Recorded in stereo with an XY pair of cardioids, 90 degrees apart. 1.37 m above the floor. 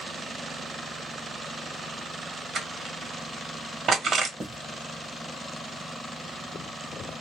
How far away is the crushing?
About 1.1 m.